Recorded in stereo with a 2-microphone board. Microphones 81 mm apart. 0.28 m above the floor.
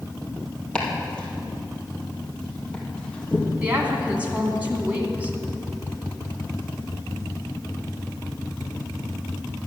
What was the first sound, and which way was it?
Chopping, 10° left (ahead or behind).